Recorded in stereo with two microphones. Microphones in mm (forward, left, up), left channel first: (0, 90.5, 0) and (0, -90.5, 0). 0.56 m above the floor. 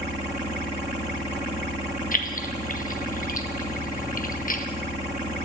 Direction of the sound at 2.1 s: 50° left (ahead or behind).